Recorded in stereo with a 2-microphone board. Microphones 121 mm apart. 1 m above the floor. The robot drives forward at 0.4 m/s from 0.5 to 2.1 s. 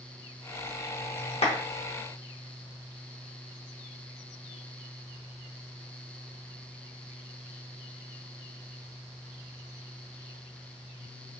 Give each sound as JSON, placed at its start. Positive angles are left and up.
{"t": 1.4, "sound": "a clap", "side_deg": 60, "distance_m": 0.9}